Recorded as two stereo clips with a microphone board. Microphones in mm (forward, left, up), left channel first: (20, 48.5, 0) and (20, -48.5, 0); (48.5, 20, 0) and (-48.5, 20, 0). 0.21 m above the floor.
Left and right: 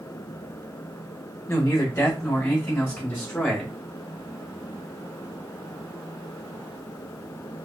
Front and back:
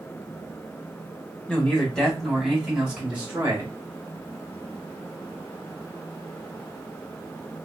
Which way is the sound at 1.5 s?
65° left.